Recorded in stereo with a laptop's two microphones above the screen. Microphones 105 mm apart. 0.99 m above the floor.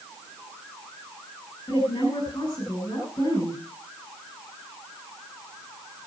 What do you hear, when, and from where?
1.7 s a woman speaking: 40° left (ahead or behind), 6 m